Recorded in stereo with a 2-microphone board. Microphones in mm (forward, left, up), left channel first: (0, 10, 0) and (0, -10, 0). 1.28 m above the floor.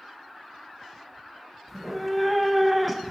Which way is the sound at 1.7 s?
5° left (ahead or behind).